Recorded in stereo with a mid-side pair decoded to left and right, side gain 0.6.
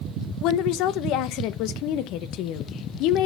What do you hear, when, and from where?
0.4 s a woman speaking: 70° left, 0.7 m